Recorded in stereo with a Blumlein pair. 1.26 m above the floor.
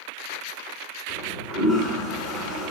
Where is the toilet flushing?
35° left, 8 m.